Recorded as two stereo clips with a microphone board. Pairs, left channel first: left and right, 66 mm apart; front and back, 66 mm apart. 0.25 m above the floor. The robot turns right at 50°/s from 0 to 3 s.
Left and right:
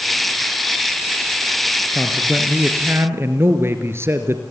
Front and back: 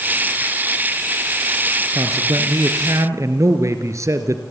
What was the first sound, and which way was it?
A man speaking, 165° left.